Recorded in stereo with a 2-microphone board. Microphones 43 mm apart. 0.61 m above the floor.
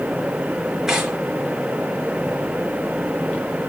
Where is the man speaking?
No man speaking in this recording.